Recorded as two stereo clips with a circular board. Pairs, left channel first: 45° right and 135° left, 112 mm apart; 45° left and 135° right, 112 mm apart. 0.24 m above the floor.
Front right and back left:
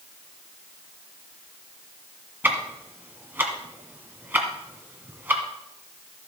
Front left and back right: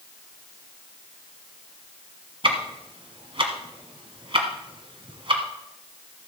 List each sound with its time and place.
2.4 s ticking: 160° right, 1.6 m